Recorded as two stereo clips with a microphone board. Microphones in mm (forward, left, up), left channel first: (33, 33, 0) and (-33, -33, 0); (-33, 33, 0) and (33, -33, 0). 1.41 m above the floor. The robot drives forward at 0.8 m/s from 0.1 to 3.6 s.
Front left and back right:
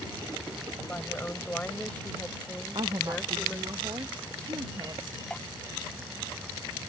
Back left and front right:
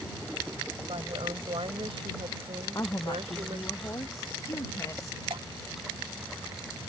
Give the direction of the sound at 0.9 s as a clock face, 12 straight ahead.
1 o'clock.